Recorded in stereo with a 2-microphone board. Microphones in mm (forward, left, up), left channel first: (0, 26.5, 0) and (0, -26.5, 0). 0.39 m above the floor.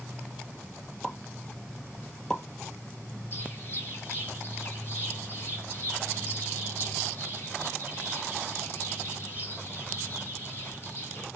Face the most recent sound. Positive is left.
turn(degrees=40)  # may be behind; listen again after turning